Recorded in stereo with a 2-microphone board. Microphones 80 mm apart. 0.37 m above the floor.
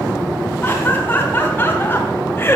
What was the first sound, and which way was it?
Laughter, 25° left (ahead or behind).